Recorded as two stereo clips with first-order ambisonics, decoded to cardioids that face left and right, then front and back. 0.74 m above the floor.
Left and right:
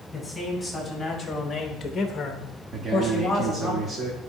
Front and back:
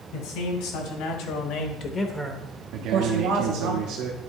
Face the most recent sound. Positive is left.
turn(degrees=-150)